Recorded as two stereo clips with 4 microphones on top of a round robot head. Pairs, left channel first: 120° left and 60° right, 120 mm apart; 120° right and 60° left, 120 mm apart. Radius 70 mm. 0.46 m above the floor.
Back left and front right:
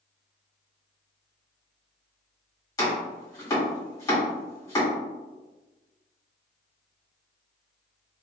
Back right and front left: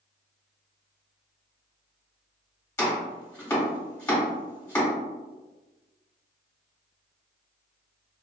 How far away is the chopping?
About 1.6 m.